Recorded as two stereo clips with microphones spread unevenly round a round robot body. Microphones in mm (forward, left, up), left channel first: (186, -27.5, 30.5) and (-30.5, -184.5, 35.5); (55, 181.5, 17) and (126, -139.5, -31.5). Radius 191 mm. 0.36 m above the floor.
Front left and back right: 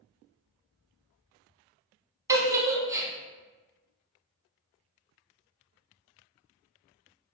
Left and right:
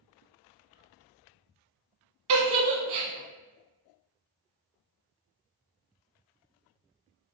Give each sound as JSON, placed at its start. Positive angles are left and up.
{"t": 2.3, "sound": "a giggle", "azimuth_deg": -65, "distance_m": 0.7}